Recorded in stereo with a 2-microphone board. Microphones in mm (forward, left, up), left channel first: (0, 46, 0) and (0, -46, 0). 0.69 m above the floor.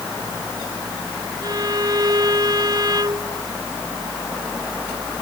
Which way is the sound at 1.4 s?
50° right (ahead or behind).